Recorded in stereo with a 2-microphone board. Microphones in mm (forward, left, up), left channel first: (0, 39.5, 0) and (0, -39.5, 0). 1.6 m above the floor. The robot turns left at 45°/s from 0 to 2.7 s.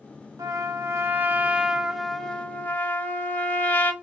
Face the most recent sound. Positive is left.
turn(degrees=150)